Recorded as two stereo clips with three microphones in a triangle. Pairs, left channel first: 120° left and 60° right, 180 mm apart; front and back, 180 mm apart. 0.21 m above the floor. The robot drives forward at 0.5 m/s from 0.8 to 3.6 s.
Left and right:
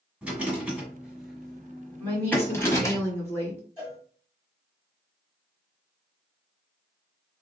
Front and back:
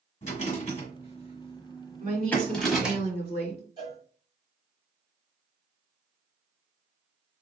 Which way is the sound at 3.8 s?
140° right.